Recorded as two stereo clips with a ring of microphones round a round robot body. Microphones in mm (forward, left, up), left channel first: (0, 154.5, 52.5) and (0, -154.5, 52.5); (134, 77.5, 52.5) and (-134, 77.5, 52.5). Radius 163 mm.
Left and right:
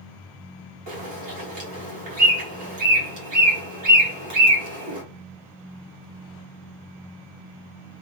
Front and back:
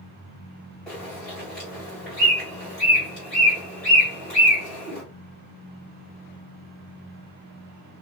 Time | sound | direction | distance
0.9 | a bird | 85° right | 2 m